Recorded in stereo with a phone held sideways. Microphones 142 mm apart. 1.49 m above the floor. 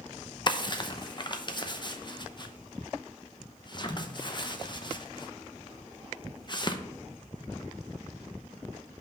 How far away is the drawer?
About 0.7 m.